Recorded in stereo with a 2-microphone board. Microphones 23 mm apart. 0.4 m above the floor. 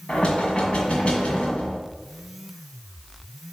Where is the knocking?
45° left (ahead or behind), 1.9 m.